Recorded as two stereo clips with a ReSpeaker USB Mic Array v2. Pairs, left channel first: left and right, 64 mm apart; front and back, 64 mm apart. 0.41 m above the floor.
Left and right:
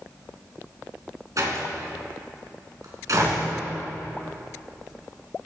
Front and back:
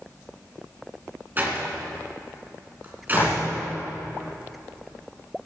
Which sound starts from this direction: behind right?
A door slam, at 1.4 s.